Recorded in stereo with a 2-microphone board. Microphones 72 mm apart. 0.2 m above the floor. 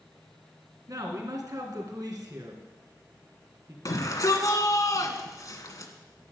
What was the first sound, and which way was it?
A man speaking, 55° right (ahead or behind).